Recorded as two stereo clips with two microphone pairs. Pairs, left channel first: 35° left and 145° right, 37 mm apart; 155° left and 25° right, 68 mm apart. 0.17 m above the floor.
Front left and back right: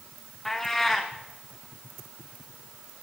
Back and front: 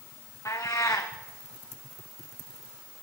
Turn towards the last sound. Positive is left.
turn(degrees=115)